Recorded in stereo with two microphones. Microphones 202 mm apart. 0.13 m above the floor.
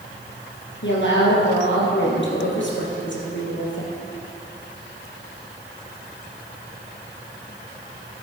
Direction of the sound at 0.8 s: 65° left (ahead or behind).